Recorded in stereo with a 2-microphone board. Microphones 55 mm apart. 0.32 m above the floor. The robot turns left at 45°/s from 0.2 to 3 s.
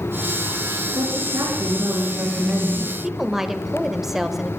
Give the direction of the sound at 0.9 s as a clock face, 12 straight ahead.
3 o'clock.